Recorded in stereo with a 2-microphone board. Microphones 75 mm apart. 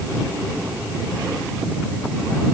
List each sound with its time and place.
Only background noise.